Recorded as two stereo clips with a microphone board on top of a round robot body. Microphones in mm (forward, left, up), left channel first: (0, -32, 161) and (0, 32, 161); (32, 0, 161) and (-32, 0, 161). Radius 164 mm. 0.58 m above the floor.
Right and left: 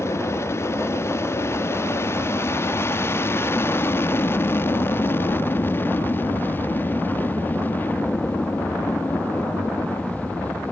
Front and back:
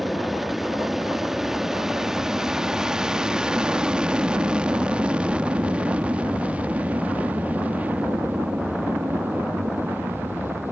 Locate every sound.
0.0 s an aircraft: 95° right; by 10.7 s 145° right